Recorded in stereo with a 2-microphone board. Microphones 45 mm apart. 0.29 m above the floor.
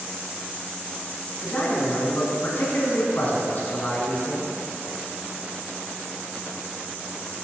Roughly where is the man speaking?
Left.